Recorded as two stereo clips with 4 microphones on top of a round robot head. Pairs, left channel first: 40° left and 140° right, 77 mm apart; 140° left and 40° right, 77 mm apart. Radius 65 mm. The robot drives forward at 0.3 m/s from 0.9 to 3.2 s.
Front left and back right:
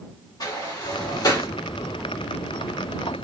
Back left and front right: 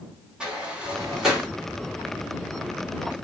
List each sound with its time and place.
0.4 s a sliding door: 40° left, 1.4 m; by 1.5 s 45° left, 1.3 m